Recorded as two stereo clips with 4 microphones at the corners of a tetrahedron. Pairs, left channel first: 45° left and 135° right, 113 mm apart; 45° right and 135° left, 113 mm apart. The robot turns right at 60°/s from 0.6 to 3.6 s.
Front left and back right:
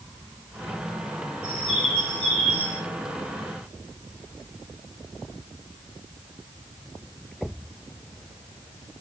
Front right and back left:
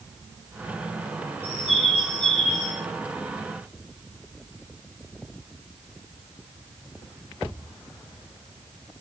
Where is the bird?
125° left, 7 m; by 2.8 s 150° right, 7 m.